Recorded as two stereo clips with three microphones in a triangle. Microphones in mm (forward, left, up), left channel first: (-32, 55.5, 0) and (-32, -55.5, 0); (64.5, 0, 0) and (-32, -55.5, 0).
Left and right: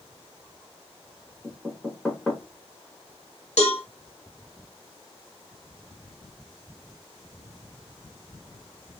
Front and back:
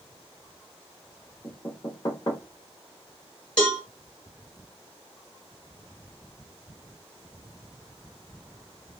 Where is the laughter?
I don't hear laughter.